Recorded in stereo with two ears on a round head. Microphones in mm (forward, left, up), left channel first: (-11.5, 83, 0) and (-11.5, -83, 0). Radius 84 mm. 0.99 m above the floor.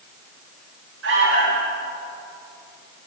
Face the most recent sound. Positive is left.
turn(degrees=-80)